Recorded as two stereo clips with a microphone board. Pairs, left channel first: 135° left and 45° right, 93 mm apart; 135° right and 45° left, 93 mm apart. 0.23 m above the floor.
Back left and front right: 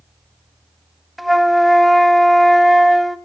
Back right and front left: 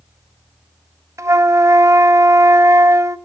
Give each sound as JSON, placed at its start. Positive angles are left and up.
{"t": 1.2, "sound": "a flute", "azimuth_deg": 45, "distance_m": 0.6}